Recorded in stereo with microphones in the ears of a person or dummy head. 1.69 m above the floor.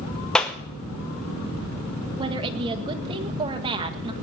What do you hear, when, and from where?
0.3 s a clap: 5° left (ahead or behind), 0.9 m
2.2 s a woman speaking: 25° right (ahead or behind), 1.5 m